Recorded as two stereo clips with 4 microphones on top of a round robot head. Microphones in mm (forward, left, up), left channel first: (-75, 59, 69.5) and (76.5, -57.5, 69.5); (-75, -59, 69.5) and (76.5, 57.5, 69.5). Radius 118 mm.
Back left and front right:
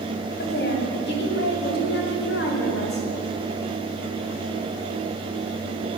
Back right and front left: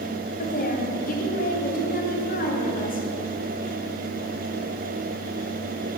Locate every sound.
0.4 s a woman speaking: 175° left, 3.5 m